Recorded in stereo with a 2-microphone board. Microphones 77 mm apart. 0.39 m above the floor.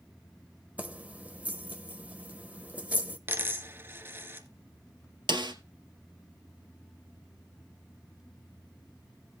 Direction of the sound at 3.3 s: 30° right (ahead or behind).